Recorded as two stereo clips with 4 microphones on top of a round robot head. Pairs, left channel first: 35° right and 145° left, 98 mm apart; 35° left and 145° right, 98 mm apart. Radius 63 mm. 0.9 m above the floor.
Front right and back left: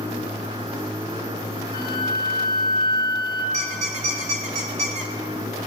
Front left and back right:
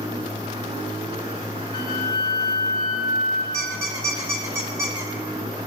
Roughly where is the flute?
Ahead.